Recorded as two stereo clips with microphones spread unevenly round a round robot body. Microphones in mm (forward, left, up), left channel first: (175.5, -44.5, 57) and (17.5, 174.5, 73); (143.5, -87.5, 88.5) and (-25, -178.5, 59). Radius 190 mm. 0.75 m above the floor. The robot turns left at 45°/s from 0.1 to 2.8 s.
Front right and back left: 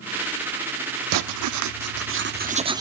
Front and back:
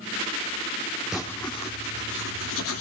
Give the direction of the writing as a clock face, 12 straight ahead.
8 o'clock.